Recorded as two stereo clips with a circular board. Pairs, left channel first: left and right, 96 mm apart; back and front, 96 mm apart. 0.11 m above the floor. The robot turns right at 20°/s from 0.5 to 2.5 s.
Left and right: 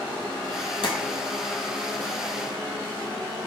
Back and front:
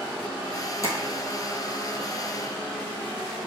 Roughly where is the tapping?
Behind left.